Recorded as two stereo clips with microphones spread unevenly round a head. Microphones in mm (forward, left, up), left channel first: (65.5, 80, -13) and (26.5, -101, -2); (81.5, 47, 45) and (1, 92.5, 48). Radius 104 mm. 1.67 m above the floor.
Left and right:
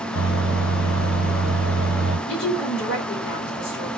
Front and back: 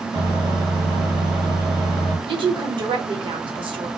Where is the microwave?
115° left, 1.5 m.